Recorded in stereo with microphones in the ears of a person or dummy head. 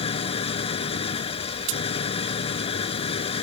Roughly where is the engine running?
Left.